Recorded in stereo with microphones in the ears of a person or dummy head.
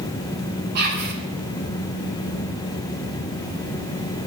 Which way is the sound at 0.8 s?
50° right (ahead or behind).